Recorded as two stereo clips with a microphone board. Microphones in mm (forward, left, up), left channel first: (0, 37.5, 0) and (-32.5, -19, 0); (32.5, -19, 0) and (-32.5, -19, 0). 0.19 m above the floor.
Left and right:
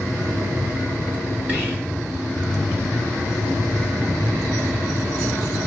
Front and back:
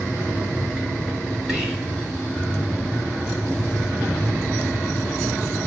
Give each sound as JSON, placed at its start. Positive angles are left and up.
{"t": 1.5, "sound": "whispering", "azimuth_deg": -115, "distance_m": 1.3}